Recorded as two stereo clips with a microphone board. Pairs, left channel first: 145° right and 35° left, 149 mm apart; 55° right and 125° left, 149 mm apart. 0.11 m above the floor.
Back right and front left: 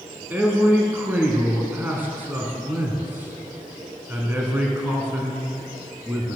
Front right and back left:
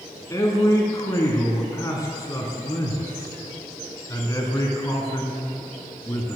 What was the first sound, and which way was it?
A man speaking, 25° right.